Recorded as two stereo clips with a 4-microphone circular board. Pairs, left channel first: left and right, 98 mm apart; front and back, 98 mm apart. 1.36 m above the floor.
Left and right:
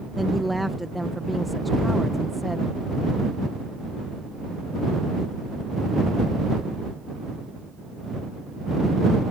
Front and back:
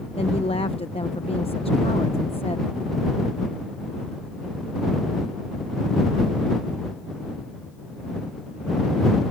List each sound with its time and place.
0.1 s a woman speaking: straight ahead